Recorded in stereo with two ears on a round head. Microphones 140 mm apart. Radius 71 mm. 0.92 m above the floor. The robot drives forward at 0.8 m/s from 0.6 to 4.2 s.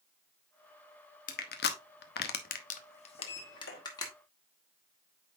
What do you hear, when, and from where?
1.3 s crushing: 50° left (ahead or behind), 1.0 m; by 4.1 s 25° left (ahead or behind), 1.8 m
3.2 s a sliding door: 75° left (ahead or behind), 1.6 m